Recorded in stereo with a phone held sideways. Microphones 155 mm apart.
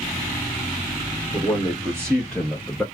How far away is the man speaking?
About 1.5 m.